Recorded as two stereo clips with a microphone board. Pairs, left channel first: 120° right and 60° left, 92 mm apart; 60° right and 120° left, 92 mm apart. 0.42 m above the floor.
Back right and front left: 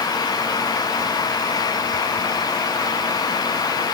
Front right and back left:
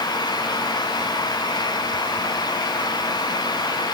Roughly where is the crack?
I don't hear a crack.